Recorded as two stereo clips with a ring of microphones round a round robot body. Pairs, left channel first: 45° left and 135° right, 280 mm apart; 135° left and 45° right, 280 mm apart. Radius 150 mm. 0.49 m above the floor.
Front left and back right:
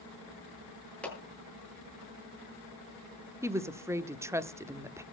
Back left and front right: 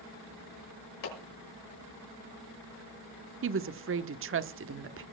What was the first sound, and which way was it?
A clap, 130° left.